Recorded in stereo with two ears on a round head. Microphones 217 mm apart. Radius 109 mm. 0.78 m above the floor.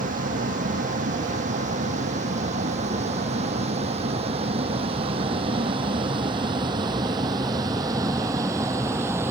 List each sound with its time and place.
0.0 s a vehicle: 35° right (ahead or behind); by 9.3 s 10° right (ahead or behind)